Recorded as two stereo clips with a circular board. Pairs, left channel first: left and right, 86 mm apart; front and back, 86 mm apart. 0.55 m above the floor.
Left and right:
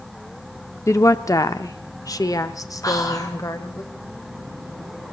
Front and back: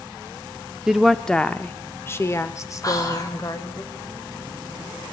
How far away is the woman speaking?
About 0.7 m.